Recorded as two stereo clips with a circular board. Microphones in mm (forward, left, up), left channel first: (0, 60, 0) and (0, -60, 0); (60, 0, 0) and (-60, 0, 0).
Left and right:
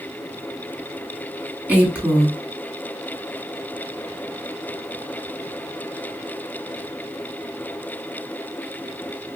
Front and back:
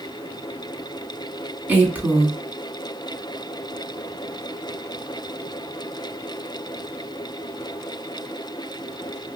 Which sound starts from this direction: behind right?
A woman speaking, at 1.7 s.